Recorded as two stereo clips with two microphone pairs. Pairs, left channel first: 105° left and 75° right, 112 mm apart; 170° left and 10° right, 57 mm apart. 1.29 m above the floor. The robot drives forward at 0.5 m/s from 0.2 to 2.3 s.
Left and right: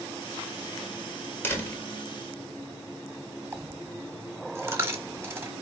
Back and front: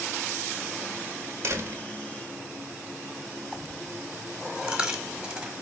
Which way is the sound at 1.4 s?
35° left.